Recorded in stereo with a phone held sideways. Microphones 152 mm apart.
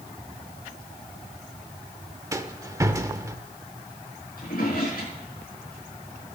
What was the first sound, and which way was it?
A rattle, 20° right (ahead or behind).